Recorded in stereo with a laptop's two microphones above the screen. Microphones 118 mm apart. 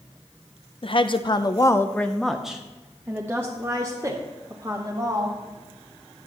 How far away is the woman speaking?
About 0.7 m.